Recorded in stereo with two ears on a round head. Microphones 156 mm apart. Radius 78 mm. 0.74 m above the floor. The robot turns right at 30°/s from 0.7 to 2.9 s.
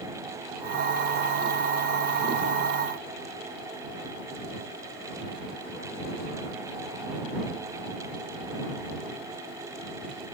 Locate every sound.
Only background noise.